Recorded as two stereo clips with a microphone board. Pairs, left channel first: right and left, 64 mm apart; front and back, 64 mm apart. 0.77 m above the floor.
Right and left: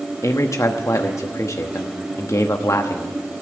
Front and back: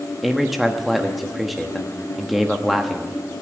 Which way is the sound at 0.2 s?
90° right.